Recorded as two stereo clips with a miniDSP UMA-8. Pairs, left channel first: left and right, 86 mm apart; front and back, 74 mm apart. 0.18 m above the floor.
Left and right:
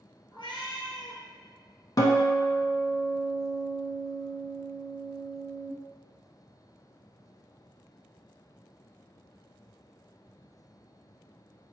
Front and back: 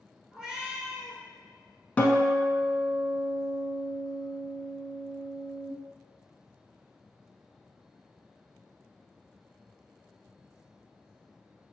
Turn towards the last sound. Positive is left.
turn(degrees=65)